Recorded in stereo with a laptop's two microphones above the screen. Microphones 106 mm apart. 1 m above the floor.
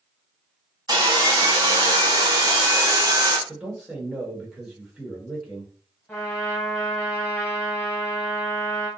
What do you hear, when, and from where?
0.9 s sawing: 35° right (ahead or behind), 0.6 m
3.5 s a man speaking: 15° right (ahead or behind), 1.2 m
6.1 s a trumpet: 15° left (ahead or behind), 1.0 m